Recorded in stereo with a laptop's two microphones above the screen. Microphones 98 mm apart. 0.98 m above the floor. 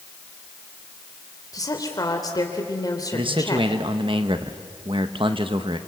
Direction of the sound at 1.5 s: 40° left (ahead or behind).